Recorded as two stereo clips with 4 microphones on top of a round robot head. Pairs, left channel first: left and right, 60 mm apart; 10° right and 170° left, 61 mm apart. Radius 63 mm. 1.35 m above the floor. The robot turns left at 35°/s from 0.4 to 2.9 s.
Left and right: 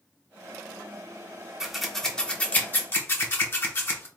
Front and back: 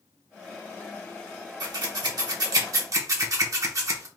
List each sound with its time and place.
1.6 s scissors: 175° right, 0.9 m; by 4.1 s 140° left, 0.9 m